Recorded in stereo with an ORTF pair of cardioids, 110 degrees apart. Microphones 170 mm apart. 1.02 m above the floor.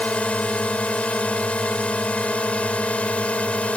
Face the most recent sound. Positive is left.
turn(degrees=5)